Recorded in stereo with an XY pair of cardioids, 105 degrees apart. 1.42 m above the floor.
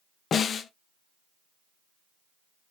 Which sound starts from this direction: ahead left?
A snare drum, at 0.3 s.